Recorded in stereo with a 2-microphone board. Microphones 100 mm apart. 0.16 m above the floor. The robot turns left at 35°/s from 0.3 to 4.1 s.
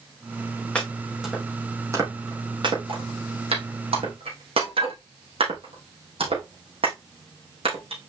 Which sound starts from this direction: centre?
Chopping, at 0.8 s.